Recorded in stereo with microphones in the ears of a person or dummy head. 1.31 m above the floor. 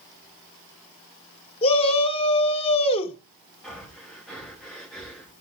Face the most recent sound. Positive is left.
turn(degrees=5)  # may be behind; listen again after turning